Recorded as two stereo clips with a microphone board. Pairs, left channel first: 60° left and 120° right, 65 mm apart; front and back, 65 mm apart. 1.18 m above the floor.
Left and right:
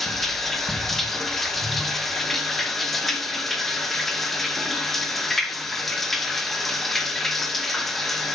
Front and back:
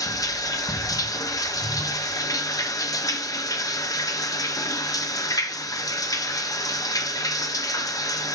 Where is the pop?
No pop in this recording.